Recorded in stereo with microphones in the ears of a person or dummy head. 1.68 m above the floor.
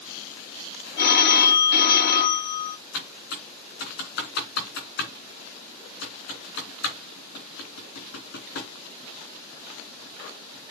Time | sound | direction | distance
1.0 | a phone ringing | 55° left (ahead or behind) | 1.4 m
2.9 | typing on a keyboard | 65° left (ahead or behind) | 3 m